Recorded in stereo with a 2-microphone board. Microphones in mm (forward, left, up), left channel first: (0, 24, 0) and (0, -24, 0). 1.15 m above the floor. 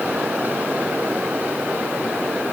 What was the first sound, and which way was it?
Only background noise.